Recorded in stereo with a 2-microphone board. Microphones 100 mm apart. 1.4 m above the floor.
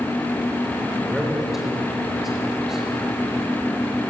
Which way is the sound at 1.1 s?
Centre (ahead or behind).